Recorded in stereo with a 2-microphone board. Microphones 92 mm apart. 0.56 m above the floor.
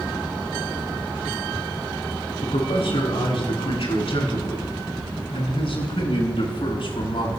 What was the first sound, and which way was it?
A man speaking, 80° left.